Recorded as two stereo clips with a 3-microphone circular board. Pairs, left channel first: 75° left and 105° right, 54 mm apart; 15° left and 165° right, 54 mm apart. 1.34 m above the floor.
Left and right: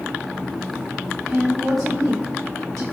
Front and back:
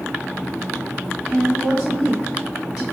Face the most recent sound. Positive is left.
turn(degrees=-90)